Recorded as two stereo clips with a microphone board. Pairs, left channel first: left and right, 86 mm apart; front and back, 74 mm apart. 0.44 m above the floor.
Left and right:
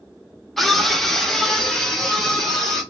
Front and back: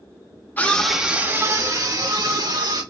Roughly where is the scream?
Ahead.